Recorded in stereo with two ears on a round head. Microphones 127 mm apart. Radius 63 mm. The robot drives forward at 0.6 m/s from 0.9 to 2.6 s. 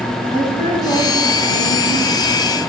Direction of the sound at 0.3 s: 30° left (ahead or behind).